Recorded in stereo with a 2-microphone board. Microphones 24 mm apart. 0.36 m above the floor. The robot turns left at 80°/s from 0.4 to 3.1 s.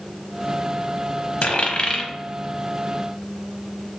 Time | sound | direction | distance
1.4 | a dropped coin | 70° left (ahead or behind) | 0.7 m